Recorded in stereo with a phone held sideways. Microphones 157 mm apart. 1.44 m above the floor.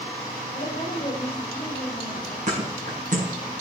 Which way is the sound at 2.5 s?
50° right (ahead or behind).